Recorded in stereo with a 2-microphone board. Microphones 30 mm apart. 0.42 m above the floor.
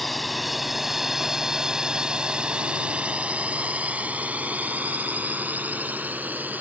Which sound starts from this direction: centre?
A drone, at 0.0 s.